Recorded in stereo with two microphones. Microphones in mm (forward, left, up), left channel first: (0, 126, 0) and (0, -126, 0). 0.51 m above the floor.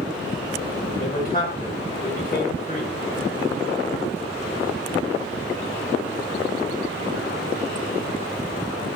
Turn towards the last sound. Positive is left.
turn(degrees=35)  # may be behind; listen again after turning